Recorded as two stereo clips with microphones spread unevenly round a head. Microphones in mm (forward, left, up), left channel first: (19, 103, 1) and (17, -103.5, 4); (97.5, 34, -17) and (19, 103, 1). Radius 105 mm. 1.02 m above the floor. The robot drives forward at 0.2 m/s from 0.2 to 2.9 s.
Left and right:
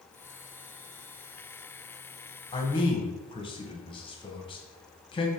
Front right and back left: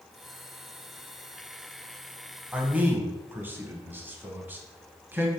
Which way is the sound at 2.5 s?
55° left.